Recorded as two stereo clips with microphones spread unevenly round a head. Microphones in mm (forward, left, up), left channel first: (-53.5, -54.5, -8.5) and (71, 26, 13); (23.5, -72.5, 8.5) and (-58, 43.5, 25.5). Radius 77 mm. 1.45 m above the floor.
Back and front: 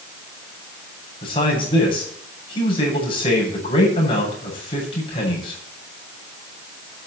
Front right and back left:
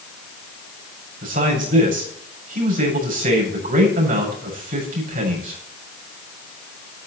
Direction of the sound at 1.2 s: 150° left.